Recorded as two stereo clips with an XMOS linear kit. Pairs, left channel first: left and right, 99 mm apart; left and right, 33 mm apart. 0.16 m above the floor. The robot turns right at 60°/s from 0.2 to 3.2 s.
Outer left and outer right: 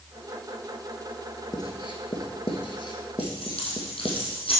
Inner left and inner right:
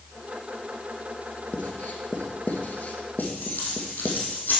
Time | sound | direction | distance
1.5 | writing | 40° left (ahead or behind) | 1.4 m
3.2 | keys jangling | 65° left (ahead or behind) | 3.5 m